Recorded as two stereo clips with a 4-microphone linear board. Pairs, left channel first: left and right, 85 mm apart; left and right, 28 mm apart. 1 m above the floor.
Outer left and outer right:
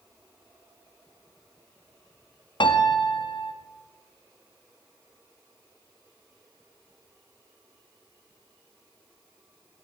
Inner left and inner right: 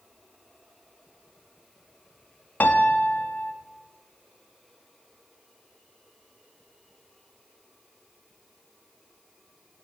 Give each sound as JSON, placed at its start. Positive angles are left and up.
{"t": 2.6, "sound": "a piano", "side_deg": 70, "distance_m": 0.7}